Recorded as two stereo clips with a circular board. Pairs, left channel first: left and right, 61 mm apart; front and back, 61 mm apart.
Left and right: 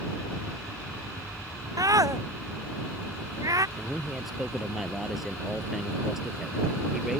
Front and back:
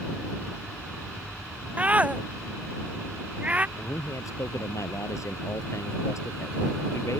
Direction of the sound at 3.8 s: 5° right.